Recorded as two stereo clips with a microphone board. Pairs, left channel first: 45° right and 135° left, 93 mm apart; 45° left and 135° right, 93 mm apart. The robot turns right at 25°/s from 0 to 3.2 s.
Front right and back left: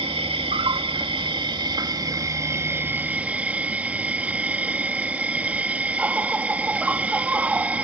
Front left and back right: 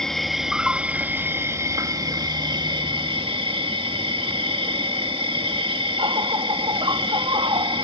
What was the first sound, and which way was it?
An insect, 130° left.